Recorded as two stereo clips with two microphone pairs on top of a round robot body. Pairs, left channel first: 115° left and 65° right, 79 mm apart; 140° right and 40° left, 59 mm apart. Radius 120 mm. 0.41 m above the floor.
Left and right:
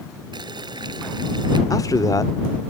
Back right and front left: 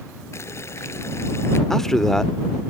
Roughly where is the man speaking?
Behind left.